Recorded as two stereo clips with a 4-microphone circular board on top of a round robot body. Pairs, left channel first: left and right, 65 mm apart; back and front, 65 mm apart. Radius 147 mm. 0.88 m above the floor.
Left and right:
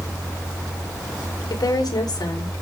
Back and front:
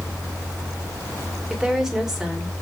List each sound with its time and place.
1.5 s a woman speaking: 85° left, 4 m